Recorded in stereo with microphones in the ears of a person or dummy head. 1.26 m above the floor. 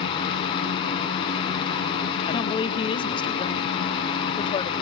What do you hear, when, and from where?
0.0 s a fan: 30° left (ahead or behind), 3 m
2.3 s a woman speaking: 25° left (ahead or behind), 1.2 m